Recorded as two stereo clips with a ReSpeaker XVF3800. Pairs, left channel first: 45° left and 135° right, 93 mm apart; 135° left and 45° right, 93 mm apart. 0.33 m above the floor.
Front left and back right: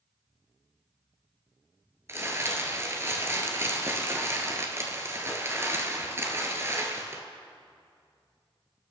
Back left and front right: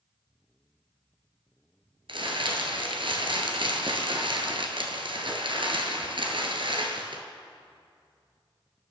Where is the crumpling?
75° right, 1.7 m.